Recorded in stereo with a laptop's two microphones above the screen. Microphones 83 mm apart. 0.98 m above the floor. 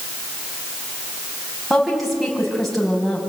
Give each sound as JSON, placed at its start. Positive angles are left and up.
{"t": 1.7, "sound": "a woman speaking", "side_deg": 0, "distance_m": 6.5}